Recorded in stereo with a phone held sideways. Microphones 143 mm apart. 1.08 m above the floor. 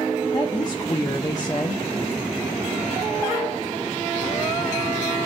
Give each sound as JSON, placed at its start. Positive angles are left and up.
{"t": 0.3, "sound": "a woman speaking", "side_deg": 25, "distance_m": 0.8}